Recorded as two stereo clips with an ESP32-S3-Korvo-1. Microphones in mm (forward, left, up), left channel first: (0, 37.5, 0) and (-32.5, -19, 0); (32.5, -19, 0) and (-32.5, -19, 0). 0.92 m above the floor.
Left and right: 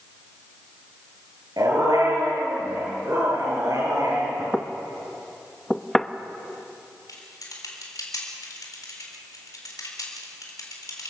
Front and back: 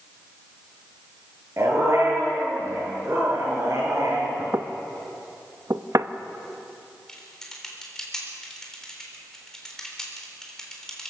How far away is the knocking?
About 0.6 m.